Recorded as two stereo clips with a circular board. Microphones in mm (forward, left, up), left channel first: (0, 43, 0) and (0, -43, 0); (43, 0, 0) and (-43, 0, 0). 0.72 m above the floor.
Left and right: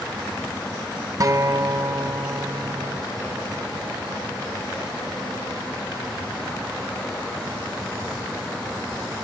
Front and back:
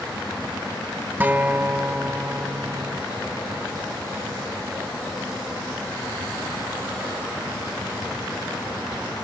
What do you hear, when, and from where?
1.2 s a guitar: 120° right